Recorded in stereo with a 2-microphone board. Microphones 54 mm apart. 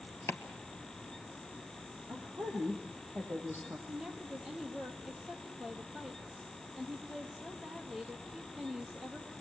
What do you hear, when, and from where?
0.3 s chopping: 50° left (ahead or behind), 1.8 m
2.1 s a woman speaking: 50° right (ahead or behind), 6.5 m
3.9 s a woman speaking: 10° right (ahead or behind), 3.5 m